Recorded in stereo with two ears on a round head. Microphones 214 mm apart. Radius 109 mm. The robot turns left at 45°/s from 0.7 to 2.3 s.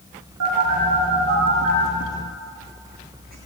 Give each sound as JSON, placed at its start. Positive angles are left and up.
{"t": 0.4, "sound": "a phone buzzing", "side_deg": -65, "distance_m": 7.0}